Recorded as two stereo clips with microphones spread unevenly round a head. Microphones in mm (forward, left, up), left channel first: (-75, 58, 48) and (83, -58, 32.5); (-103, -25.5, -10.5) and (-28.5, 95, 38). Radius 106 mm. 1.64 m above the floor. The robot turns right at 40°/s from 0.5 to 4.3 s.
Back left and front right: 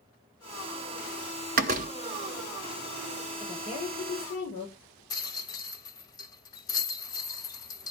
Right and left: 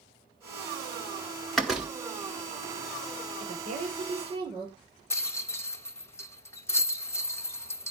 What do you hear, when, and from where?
1.6 s a door slam: 10° right, 0.7 m; by 1.9 s 5° left, 0.7 m
3.4 s a woman speaking: 70° left, 5.5 m; by 5.0 s 105° left, 5.5 m
5.1 s a rattle: 145° left, 0.8 m